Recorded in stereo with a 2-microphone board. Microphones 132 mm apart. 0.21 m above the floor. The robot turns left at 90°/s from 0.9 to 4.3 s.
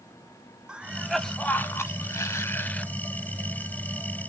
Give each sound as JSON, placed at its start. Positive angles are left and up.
{"t": 0.7, "sound": "a cough", "side_deg": -5, "distance_m": 1.0}